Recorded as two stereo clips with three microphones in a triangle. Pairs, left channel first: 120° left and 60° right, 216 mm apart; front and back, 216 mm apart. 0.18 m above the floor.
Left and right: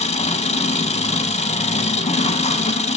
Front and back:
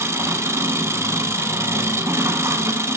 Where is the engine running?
115° left, 0.8 m.